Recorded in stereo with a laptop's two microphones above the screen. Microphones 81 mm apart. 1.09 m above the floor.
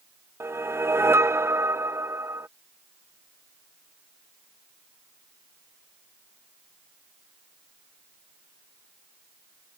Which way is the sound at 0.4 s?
30° right (ahead or behind).